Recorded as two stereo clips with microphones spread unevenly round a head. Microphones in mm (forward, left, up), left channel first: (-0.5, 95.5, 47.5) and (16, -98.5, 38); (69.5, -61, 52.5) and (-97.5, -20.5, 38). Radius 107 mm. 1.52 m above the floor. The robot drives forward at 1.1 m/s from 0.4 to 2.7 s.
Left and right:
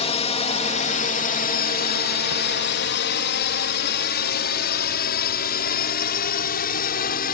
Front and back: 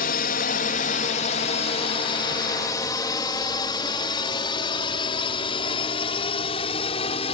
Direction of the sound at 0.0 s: 35° left.